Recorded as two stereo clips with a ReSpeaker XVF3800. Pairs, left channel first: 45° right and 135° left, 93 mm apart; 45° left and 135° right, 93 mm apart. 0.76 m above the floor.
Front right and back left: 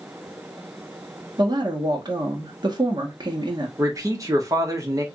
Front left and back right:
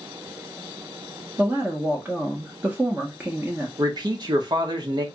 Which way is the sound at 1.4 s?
155° left.